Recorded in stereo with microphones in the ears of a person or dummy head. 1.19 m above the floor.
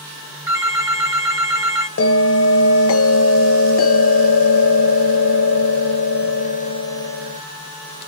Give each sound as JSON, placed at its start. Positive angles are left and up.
{"t": 0.5, "sound": "a phone ringing", "side_deg": -20, "distance_m": 1.6}
{"t": 2.0, "sound": "a bell", "side_deg": 70, "distance_m": 0.7}